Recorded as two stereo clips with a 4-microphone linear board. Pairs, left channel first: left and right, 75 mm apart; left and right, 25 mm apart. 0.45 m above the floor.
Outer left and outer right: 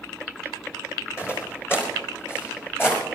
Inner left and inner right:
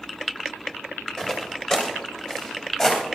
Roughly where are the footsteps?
Left.